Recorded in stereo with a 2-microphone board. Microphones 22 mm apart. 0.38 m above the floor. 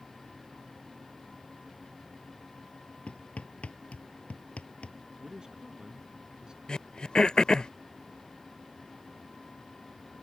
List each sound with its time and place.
3.1 s hammering: 80° left
5.2 s a man speaking: 35° right (ahead or behind)
6.7 s throat clearing: 45° left (ahead or behind)